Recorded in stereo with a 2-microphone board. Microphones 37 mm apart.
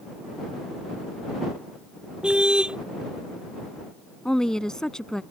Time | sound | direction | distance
2.2 | a car horn | 25° right (ahead or behind) | ?
4.2 | a woman speaking | 15° left (ahead or behind) | ?